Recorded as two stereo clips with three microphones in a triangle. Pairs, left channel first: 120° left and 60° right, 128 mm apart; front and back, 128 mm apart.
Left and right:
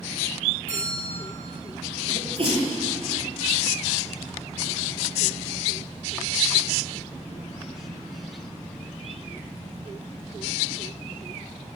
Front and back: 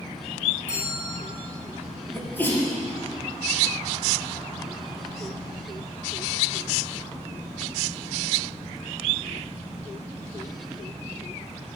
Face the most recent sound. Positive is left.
turn(degrees=-70)